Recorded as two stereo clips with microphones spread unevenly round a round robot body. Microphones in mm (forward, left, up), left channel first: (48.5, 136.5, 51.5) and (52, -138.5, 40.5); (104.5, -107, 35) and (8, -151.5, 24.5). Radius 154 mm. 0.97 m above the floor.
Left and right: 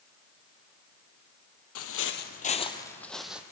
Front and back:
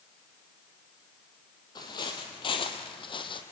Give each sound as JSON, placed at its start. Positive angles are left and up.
{"t": 1.8, "sound": "footsteps", "azimuth_deg": 75, "distance_m": 1.5}